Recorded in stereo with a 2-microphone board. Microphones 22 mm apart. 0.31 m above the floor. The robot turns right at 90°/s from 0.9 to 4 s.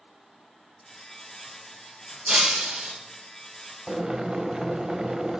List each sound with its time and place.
2.3 s breaking glass: 165° right, 4 m; by 3.0 s 100° right, 4 m
3.9 s boiling: 10° right (ahead or behind), 0.5 m; by 5.4 s 20° right (ahead or behind), 0.5 m